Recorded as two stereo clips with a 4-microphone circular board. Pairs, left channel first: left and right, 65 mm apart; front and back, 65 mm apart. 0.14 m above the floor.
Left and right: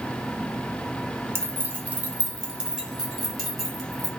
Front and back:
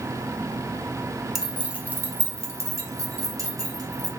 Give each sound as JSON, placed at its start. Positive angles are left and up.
{"t": 1.4, "sound": "keys jangling", "azimuth_deg": -95, "distance_m": 0.9}